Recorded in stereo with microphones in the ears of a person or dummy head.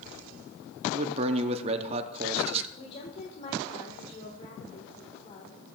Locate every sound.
0.9 s a man speaking: 30° right (ahead or behind), 0.6 m
2.8 s a woman speaking: 45° left (ahead or behind), 1.4 m